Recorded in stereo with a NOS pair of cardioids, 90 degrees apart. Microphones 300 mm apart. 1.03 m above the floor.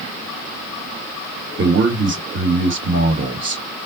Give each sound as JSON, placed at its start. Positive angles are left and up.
{"t": 1.6, "sound": "a man speaking", "azimuth_deg": -40, "distance_m": 1.1}